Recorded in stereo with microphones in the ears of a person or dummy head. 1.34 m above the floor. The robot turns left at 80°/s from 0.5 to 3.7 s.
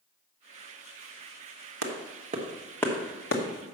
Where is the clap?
70° right (ahead or behind), 1.2 m; by 3.4 s 55° left (ahead or behind), 1.2 m.